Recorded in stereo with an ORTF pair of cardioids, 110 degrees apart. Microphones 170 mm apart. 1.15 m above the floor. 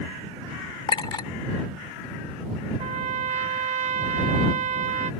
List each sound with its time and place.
0.9 s a clink: 30° left
2.8 s a trumpet: 45° right